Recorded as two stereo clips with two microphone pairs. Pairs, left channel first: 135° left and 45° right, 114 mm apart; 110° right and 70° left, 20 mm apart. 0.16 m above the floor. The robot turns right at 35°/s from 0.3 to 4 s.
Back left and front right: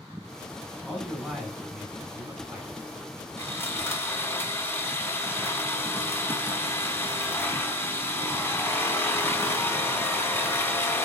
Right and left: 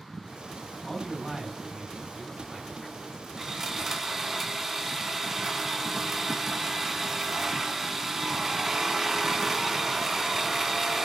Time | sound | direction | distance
0.8 | a man speaking | 145° right | 1.7 m
3.4 | sawing | 115° left | 0.9 m